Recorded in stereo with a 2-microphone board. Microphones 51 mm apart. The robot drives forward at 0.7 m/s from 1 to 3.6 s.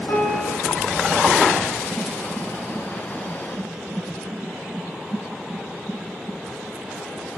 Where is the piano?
80° left, 9.5 m.